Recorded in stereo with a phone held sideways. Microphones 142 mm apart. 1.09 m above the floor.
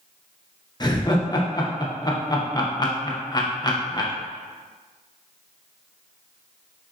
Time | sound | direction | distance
0.8 | laughter | 30° left (ahead or behind) | 0.6 m